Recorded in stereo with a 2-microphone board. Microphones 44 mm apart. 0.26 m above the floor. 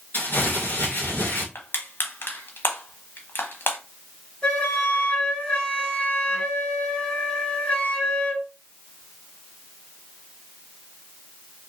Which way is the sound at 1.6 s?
50° left (ahead or behind).